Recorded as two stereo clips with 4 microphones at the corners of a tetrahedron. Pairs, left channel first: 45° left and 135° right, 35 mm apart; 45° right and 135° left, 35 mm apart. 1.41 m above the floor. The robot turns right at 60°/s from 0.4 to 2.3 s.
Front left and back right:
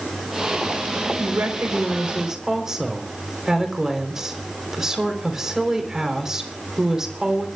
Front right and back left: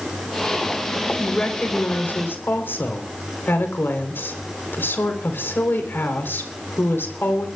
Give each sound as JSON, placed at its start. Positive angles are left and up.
{"t": 1.2, "sound": "a woman speaking", "azimuth_deg": -125, "distance_m": 4.0}